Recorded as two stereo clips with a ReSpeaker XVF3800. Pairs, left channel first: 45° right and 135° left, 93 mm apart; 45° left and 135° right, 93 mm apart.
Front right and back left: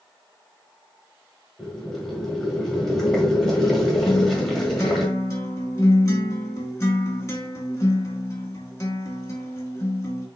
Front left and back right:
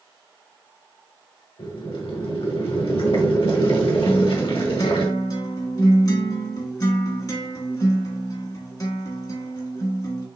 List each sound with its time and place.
1.6 s boiling: 40° left, 1.5 m
4.1 s a guitar: 10° left, 1.4 m